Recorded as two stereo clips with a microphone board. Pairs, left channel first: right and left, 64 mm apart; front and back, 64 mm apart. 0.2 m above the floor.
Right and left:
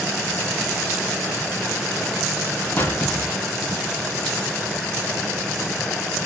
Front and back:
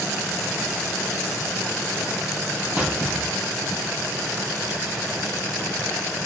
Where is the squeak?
120° right, 1.0 m.